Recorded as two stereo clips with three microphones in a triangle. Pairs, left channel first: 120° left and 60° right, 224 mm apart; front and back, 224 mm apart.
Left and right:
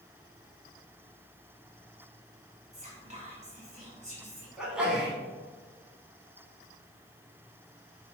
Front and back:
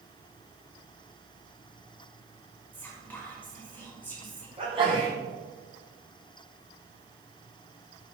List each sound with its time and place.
2.7 s whispering: 75° right, 1.1 m
4.6 s a sneeze: 140° right, 1.4 m